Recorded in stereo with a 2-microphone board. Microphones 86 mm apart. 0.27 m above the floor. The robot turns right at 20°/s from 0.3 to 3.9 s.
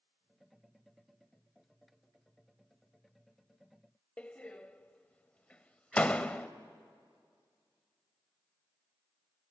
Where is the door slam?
15° left (ahead or behind), 0.6 m.